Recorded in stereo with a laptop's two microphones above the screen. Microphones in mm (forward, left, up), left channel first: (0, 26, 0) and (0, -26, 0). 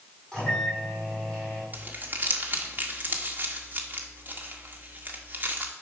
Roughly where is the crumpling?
Right.